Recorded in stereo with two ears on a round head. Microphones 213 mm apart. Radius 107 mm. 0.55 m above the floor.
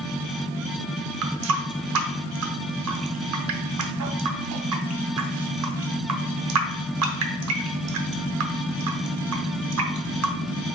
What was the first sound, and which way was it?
A running tap, 65° right (ahead or behind).